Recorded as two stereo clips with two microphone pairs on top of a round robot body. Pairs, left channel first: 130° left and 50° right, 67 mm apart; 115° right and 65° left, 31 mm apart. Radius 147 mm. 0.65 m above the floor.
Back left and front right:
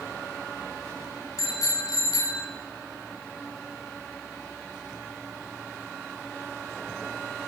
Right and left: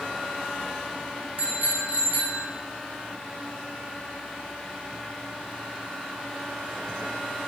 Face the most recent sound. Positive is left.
turn(degrees=105)